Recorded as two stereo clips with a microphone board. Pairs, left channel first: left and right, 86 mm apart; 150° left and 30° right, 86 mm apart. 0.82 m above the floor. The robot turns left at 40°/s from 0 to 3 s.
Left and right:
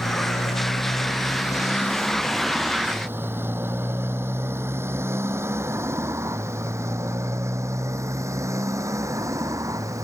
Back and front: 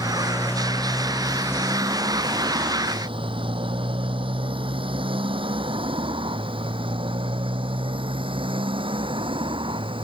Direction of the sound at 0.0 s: 100° left.